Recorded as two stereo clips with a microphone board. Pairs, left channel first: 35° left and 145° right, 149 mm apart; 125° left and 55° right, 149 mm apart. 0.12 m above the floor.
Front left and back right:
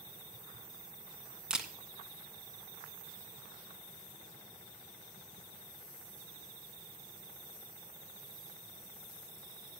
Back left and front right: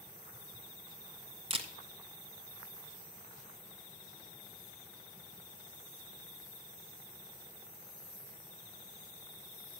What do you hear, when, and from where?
1.5 s a camera shutter: 65° right, 1.3 m